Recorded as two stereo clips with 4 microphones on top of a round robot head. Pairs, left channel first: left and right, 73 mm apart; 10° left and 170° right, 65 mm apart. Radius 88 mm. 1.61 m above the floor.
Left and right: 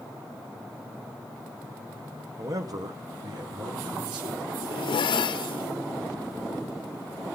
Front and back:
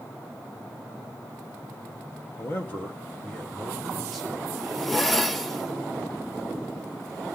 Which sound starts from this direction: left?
A zipper, at 4.5 s.